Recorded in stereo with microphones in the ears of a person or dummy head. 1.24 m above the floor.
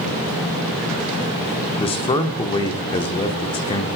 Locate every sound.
1.8 s a man speaking: 25° left (ahead or behind), 1.0 m